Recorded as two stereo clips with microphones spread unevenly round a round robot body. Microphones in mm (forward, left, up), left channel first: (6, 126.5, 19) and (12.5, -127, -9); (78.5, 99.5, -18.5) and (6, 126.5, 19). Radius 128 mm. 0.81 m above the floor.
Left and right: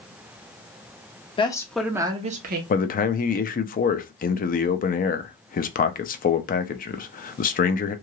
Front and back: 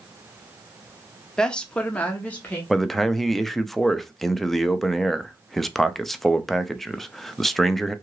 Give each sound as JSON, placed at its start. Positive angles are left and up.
{"t": 1.4, "sound": "a woman speaking", "azimuth_deg": 25, "distance_m": 0.7}
{"t": 2.7, "sound": "a man speaking", "azimuth_deg": 40, "distance_m": 0.5}